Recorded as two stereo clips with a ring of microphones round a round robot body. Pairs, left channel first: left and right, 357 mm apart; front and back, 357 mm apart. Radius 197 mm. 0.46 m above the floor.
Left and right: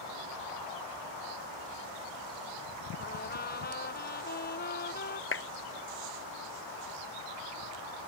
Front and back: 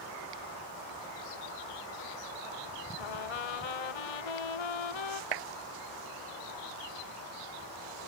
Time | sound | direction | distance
3.0 | a trumpet | 20° left | ?
5.3 | a clap | 145° left | ?